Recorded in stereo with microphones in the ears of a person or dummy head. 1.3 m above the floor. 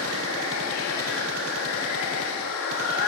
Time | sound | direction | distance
0.0 | running water | 80° left | 1.9 m